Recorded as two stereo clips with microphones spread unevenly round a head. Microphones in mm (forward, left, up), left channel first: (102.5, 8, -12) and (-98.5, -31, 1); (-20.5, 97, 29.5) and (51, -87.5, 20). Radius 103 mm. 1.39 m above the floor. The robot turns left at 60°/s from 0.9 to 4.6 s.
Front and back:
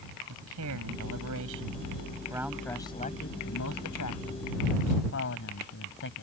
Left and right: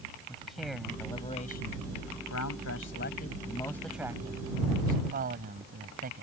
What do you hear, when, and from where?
0.3 s a man speaking: 160° right; by 6.2 s 20° right